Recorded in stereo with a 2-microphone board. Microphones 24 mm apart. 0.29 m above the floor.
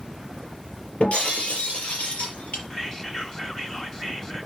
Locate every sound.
1.0 s breaking glass: 70° left (ahead or behind), 5 m
2.7 s whispering: 20° left (ahead or behind), 1.4 m